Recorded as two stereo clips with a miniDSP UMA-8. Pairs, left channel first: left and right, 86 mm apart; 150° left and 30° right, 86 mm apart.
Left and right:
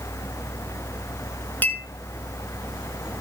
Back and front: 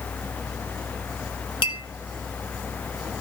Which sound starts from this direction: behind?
A clink, at 1.6 s.